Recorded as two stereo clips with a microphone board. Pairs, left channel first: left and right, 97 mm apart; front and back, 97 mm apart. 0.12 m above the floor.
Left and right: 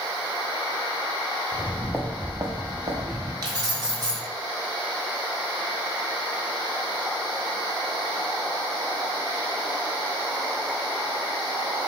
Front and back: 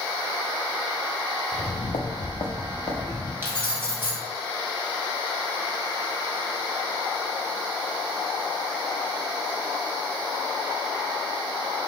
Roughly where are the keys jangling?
Behind right.